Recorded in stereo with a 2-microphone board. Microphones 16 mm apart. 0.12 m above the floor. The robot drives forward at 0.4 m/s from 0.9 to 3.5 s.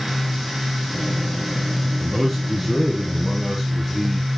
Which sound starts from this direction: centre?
A man speaking, at 2.0 s.